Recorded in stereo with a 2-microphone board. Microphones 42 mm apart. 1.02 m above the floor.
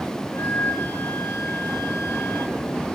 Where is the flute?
60° left (ahead or behind), 4 m.